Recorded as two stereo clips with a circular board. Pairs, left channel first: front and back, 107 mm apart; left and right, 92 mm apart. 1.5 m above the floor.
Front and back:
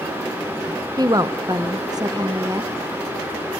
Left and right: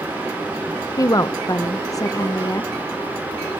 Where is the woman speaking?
135° left, 0.8 m.